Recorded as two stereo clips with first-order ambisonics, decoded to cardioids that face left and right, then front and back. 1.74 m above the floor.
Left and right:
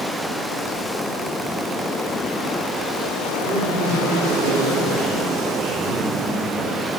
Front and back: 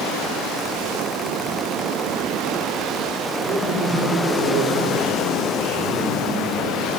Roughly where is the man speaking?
Behind right.